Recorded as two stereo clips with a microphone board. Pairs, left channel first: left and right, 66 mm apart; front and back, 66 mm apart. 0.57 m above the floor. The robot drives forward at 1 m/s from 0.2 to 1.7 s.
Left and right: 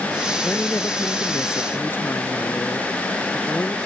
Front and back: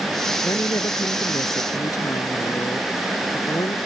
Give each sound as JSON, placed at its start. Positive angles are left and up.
{"t": 0.4, "sound": "a woman speaking", "azimuth_deg": 30}